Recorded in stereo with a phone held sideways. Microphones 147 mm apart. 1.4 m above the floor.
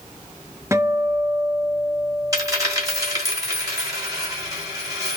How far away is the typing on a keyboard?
I don't hear typing on a keyboard.